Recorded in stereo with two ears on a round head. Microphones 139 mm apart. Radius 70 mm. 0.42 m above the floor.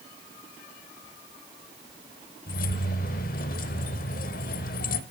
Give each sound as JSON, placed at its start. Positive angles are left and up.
{"t": 2.5, "sound": "keys jangling", "side_deg": 60, "distance_m": 1.0}